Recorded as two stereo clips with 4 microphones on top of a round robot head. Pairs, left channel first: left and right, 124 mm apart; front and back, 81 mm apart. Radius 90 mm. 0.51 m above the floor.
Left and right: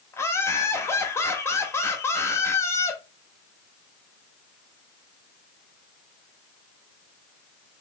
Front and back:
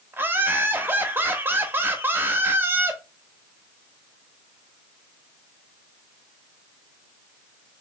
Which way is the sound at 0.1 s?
140° left.